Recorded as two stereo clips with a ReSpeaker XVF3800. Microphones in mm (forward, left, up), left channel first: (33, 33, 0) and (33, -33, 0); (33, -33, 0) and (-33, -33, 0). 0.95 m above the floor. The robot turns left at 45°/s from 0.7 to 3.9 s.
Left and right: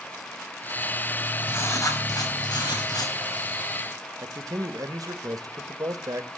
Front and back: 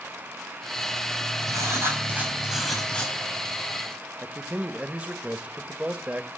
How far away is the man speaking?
About 1.2 m.